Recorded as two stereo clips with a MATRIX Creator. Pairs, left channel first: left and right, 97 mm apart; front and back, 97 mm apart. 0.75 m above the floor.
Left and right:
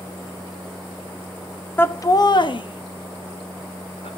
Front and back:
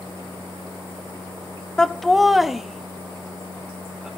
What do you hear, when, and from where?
1.8 s laughter: 70° left, 0.6 m; by 4.1 s 100° left, 2 m